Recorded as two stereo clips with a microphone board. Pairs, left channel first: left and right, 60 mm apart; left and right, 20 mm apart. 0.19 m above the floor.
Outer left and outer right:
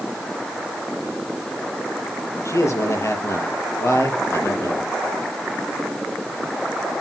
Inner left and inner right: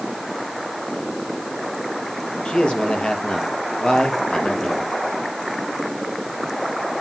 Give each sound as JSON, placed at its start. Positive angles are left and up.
{"t": 2.5, "sound": "a man speaking", "side_deg": 60, "distance_m": 5.0}